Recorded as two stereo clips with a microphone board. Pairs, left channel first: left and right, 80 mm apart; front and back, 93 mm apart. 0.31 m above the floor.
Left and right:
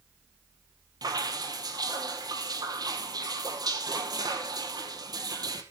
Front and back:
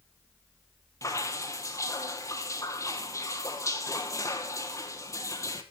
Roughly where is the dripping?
Ahead right.